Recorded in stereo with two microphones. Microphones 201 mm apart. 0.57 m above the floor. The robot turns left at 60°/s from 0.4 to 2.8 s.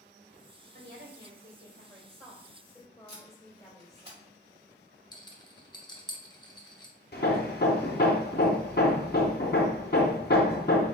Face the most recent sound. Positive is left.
turn(degrees=55)  # may be behind; listen again after turning